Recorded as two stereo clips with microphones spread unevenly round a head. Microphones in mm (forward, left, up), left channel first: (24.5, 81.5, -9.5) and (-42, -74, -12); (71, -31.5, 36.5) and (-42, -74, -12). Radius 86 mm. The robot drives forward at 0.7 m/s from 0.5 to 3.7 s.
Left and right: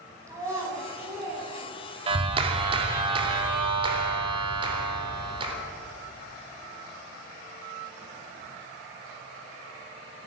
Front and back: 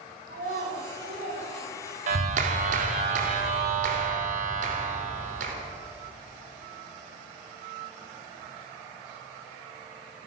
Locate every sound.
0.3 s a child speaking: 175° left, 5.5 m
2.1 s a clap: 170° right, 2 m; by 5.5 s 175° right, 3.5 m